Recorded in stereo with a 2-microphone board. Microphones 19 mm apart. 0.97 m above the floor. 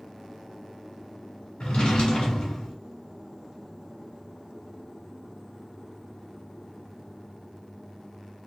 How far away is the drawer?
About 1.0 m.